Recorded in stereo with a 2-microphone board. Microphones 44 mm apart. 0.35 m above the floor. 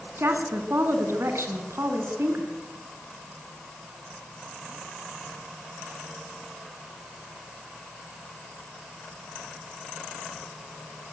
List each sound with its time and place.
0.2 s a woman speaking: 65° right (ahead or behind), 3.5 m